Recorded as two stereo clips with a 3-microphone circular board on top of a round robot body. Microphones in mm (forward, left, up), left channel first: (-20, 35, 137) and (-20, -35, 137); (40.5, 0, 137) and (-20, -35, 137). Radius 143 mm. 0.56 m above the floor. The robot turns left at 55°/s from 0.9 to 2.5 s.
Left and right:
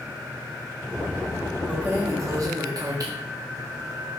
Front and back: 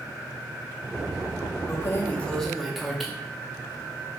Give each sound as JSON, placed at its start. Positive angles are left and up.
{"t": 1.7, "sound": "keys jangling", "azimuth_deg": -15, "distance_m": 0.6}